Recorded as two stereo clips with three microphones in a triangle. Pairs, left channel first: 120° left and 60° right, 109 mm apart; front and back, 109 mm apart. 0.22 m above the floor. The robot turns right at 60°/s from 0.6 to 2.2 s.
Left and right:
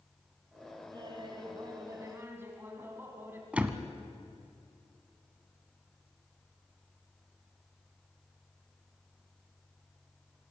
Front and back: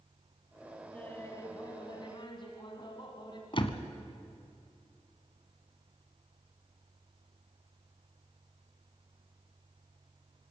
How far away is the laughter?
About 1.9 m.